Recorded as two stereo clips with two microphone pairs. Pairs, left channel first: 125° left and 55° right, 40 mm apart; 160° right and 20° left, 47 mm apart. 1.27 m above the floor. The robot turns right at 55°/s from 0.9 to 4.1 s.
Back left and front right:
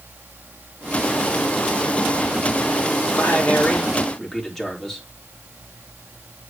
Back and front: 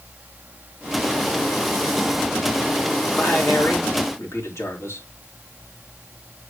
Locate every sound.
3.1 s a man speaking: 150° left, 4 m; by 5.1 s 155° right, 4 m